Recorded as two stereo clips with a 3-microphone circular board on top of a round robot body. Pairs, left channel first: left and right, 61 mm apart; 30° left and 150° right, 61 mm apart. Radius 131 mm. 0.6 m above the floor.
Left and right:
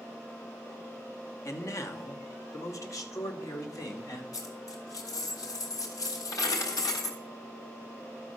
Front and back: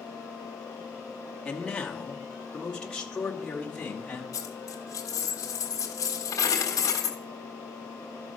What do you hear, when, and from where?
1.4 s a man speaking: 100° left, 1.6 m; by 4.2 s 105° left, 3 m
4.3 s a dropped coin: 65° left, 1.4 m